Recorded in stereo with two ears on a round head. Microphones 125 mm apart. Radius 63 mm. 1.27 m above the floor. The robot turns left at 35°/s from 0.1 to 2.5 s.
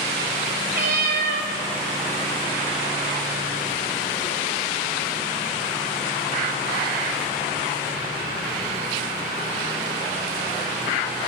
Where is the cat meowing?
70° right (ahead or behind), 2 m; by 1.5 s 65° right (ahead or behind), 2 m.